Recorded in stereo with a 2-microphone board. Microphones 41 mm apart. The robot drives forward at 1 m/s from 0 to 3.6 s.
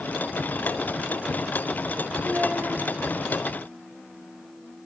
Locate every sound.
2.2 s a child speaking: 50° right (ahead or behind), 3.5 m; by 2.8 s 60° right (ahead or behind), 3 m